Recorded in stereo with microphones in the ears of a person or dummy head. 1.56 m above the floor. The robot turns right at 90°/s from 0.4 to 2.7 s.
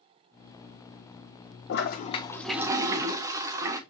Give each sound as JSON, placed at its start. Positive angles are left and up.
{"t": 1.7, "sound": "a toilet flushing", "azimuth_deg": 110, "distance_m": 1.1}